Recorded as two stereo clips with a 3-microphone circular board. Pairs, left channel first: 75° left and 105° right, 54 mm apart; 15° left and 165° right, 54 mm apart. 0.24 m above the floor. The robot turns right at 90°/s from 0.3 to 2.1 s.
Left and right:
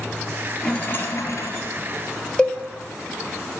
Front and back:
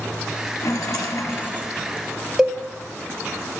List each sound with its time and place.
0.6 s a rattle: 10° right, 1.6 m; by 1.7 s 90° left, 1.6 m
2.4 s a cowbell: 130° left, 1.1 m